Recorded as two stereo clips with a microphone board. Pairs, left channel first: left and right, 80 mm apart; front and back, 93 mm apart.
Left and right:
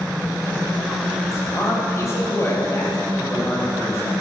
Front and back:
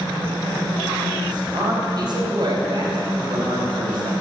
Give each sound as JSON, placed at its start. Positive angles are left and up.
{"t": 1.3, "sound": "a man speaking", "azimuth_deg": 140, "distance_m": 3.5}